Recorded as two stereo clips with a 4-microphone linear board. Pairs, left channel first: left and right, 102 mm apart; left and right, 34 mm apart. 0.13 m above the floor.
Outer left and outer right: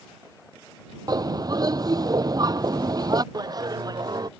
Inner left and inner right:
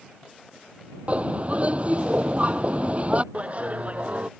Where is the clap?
40° right (ahead or behind).